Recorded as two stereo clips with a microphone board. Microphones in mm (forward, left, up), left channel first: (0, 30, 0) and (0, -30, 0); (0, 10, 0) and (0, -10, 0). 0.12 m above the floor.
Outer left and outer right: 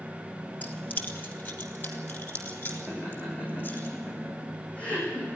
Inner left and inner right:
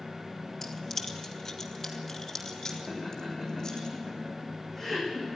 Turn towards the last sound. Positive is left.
turn(degrees=25)  # may be behind; listen again after turning